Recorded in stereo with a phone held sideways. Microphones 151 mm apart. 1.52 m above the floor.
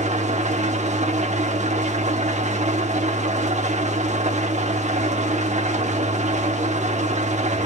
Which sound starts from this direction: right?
An engine running, at 0.0 s.